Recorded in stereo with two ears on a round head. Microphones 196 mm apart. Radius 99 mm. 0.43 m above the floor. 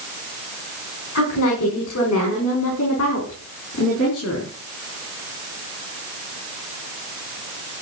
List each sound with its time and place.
1.1 s a woman speaking: 75° left (ahead or behind), 4.5 m; by 4.5 s 65° left (ahead or behind), 6.5 m